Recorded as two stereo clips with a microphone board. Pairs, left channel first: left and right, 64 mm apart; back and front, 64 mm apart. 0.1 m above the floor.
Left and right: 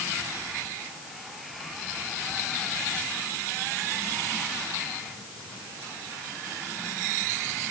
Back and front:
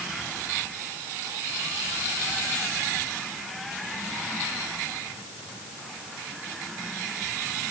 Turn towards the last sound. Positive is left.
No sound to turn to.